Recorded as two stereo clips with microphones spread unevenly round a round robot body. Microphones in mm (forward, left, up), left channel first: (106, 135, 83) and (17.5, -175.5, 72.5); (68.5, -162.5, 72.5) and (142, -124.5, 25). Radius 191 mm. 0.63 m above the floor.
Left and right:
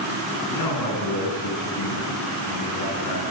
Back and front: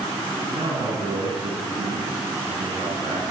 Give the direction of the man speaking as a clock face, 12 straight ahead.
10 o'clock.